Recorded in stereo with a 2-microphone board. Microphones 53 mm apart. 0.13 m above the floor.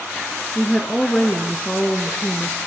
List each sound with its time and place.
0.6 s a woman speaking: 20° left (ahead or behind), 1.5 m